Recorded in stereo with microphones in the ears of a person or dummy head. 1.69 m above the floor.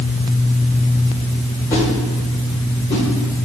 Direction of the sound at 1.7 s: 20° left (ahead or behind).